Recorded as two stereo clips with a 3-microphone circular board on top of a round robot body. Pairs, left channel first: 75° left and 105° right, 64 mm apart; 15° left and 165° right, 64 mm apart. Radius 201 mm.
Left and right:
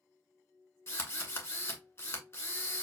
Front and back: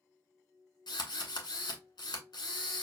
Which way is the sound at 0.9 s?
25° left.